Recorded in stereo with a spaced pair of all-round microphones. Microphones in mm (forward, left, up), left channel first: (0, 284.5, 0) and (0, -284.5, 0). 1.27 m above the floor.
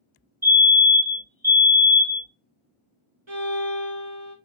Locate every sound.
0.4 s a fire alarm: 5° right (ahead or behind), 1.8 m
3.3 s a violin: 50° right (ahead or behind), 1.8 m